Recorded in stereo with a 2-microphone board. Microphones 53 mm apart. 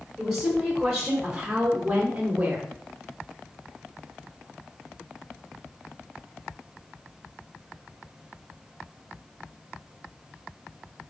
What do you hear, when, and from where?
0.2 s a woman speaking: 5° right (ahead or behind), 2 m; by 2.7 s 25° right (ahead or behind), 1.1 m